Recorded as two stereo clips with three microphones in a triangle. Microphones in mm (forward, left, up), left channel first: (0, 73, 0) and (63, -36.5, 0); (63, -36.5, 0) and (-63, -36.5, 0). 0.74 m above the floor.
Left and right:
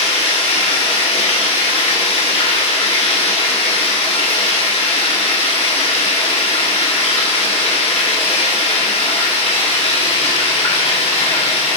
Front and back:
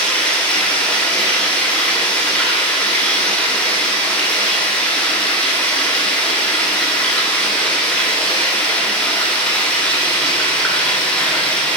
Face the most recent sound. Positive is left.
turn(degrees=80)